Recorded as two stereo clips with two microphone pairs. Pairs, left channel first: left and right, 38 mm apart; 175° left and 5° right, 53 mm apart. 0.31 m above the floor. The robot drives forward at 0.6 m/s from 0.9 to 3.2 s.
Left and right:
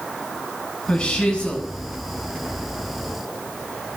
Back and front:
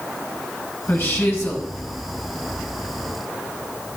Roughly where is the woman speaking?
Behind left.